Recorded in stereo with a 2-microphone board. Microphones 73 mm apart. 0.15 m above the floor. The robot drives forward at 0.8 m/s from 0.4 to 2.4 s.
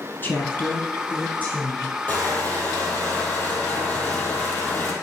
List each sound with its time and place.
0.2 s a woman speaking: 30° left (ahead or behind), 1.4 m; by 2.0 s 15° left (ahead or behind), 2.5 m
2.1 s crushing: 25° left (ahead or behind), 2 m